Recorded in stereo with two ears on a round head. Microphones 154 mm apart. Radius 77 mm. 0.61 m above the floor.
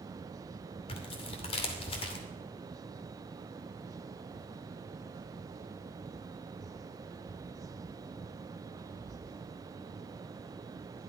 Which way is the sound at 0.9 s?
35° left (ahead or behind).